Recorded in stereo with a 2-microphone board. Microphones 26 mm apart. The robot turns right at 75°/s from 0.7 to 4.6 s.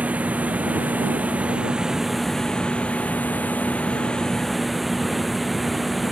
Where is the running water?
115° right; by 6.1 s straight behind.